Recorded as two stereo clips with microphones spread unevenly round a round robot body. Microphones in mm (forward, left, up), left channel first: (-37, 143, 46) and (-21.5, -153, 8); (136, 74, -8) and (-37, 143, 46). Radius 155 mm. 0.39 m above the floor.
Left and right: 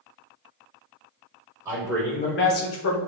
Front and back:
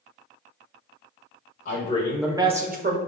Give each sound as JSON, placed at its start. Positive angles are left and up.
{"t": 1.6, "sound": "a man speaking", "azimuth_deg": -15, "distance_m": 1.3}